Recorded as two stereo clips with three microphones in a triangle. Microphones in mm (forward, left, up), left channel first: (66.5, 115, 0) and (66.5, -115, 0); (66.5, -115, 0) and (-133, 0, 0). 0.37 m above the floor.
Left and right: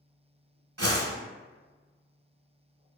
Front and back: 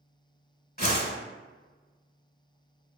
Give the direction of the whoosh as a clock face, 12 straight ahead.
3 o'clock.